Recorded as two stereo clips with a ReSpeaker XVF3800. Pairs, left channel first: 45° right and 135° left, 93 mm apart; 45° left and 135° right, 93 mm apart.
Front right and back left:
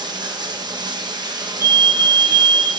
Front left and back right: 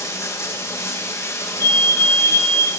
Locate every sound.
0.0 s running water: 100° left, 1.0 m
1.6 s a fire alarm: 95° left, 1.0 m